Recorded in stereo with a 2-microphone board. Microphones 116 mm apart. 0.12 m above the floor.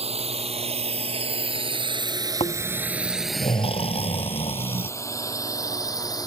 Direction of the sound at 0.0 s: 60° right (ahead or behind).